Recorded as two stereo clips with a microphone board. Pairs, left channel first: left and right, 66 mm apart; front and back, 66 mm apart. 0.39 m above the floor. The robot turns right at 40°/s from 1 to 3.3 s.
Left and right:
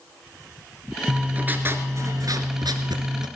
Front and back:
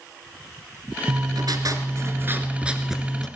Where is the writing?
170° right, 1.4 m; by 3.3 s 80° right, 1.4 m.